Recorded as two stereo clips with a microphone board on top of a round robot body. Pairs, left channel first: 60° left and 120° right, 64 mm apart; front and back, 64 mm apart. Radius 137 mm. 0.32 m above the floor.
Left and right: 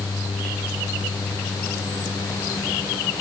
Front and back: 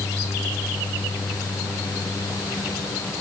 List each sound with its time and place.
Only background noise.